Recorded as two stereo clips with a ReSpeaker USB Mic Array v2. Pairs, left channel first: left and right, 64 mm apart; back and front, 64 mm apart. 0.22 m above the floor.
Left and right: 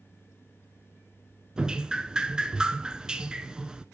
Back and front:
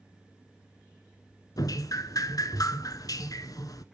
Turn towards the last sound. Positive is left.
turn(degrees=-170)